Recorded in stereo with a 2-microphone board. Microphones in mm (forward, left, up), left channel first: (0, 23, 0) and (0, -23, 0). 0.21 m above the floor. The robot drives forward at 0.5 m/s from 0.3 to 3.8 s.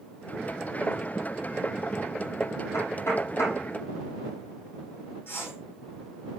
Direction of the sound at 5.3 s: 55° left (ahead or behind).